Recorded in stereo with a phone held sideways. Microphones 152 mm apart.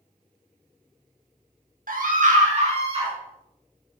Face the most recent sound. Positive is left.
turn(degrees=-35)  # may be behind; listen again after turning